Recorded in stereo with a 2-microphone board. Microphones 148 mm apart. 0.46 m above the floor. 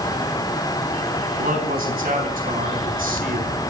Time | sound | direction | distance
1.4 | a man speaking | 75° right (ahead or behind) | 4.5 m